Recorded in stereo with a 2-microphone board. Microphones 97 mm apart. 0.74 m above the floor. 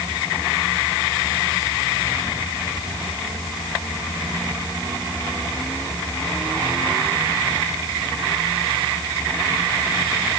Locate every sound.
Only background noise.